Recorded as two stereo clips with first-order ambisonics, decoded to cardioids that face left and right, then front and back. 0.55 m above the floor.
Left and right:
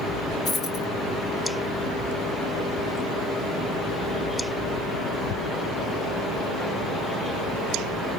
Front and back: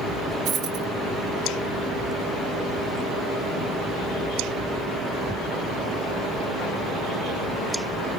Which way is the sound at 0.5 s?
140° left.